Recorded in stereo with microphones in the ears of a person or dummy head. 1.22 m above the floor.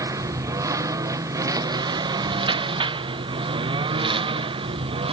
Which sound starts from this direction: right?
A lawn mower, at 0.0 s.